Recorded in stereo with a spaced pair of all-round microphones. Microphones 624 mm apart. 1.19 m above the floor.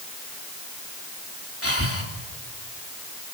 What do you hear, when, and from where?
1.6 s breathing: 20° left (ahead or behind), 3.5 m